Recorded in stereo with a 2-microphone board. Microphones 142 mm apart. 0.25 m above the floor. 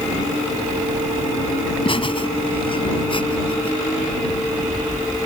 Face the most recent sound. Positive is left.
turn(degrees=40)  # may be behind; listen again after turning